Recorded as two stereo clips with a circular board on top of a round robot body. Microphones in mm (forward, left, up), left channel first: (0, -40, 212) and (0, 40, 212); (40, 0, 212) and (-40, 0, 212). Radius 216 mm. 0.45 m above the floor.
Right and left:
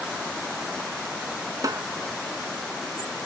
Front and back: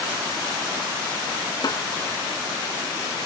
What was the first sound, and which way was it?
A snare drum, 40° left.